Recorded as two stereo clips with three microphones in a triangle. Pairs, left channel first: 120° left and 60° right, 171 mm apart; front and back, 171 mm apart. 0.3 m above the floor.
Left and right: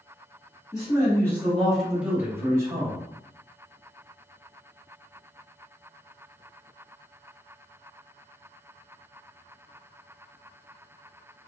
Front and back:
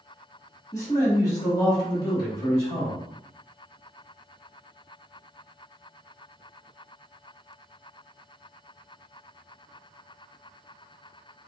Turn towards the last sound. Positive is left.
turn(degrees=-55)